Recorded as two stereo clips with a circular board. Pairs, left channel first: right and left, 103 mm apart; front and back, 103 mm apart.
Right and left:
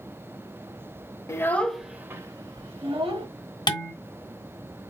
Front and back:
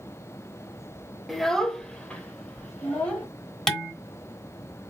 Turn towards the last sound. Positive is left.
turn(degrees=-80)